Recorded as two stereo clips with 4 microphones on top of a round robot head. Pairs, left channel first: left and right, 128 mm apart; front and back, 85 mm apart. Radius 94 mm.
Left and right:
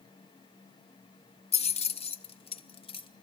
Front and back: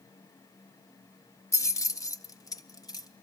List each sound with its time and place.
1.5 s keys jangling: 55° left, 1.0 m; by 3.1 s 45° left, 1.8 m